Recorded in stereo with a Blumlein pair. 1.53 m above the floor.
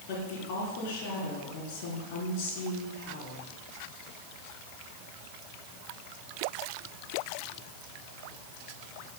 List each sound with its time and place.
0.1 s a woman speaking: 45° left, 4 m